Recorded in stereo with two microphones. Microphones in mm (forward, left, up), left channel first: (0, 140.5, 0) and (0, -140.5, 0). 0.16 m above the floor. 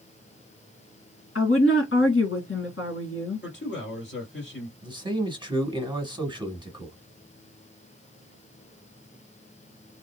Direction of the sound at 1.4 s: 50° left (ahead or behind).